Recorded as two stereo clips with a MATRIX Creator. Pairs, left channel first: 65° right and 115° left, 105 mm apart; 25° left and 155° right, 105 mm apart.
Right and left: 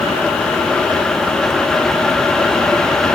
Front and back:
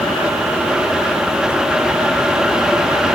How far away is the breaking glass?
No breaking glass in this recording.